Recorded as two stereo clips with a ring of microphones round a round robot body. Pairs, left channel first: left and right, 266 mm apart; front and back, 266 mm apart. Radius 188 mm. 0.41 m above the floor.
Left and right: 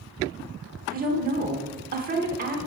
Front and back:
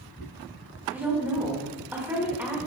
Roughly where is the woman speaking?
Right.